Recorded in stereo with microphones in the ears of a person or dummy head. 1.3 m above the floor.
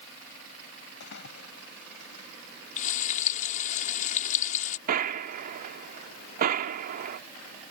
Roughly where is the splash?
Left.